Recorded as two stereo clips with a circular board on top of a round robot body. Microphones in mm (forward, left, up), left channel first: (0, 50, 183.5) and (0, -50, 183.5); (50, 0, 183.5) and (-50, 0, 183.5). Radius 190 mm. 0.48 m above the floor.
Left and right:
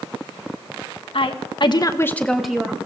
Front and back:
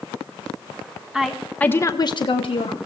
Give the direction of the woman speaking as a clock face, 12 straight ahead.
9 o'clock.